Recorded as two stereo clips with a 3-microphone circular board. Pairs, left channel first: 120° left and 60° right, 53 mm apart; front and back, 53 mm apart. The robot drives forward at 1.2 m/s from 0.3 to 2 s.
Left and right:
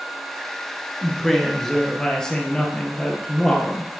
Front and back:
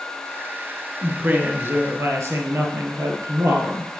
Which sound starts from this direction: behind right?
A woman speaking, at 1.0 s.